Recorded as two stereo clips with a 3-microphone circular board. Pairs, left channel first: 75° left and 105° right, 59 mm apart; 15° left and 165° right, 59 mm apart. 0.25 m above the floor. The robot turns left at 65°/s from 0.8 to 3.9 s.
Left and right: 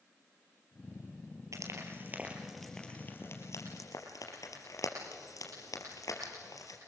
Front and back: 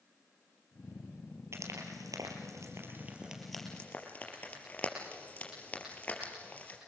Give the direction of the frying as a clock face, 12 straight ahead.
4 o'clock.